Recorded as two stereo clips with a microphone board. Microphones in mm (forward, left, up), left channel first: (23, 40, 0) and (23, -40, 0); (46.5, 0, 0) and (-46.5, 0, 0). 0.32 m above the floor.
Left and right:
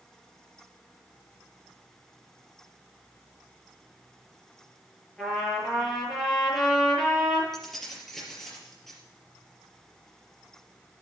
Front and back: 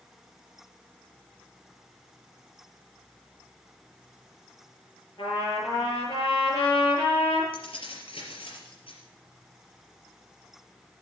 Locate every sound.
5.2 s a trumpet: 10° left, 7.5 m
7.5 s keys jangling: 5° left, 4 m